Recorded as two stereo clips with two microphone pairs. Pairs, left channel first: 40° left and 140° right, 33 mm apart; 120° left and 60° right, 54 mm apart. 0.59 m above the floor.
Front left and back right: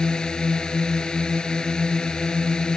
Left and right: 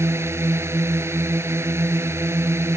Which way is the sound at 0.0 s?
25° right.